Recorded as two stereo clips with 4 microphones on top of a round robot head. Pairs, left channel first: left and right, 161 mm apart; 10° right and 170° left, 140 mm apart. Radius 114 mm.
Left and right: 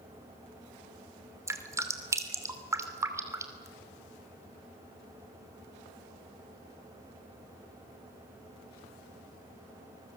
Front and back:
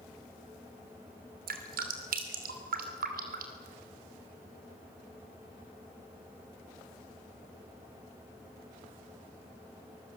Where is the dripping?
160° right, 2.5 m.